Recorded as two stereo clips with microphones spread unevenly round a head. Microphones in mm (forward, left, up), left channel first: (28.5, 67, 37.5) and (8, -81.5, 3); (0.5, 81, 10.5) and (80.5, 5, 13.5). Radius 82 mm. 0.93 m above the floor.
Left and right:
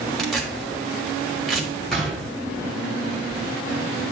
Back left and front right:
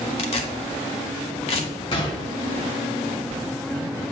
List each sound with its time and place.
0.2 s tearing paper: 160° left, 0.9 m
1.9 s a gunshot: 150° left, 0.9 m